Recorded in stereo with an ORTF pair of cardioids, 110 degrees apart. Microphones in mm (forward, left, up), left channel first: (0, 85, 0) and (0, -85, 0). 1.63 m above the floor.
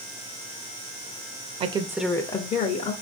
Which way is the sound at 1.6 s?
40° right.